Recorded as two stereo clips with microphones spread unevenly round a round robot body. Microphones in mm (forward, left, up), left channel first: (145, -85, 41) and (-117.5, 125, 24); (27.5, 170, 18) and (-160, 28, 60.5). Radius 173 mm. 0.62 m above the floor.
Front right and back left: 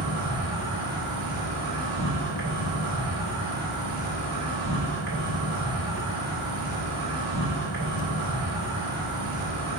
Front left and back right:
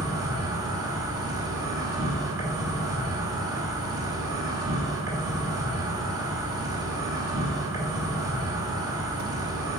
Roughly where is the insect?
Behind left.